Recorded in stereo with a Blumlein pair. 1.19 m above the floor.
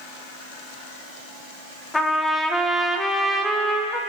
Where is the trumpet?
10° left, 0.8 m.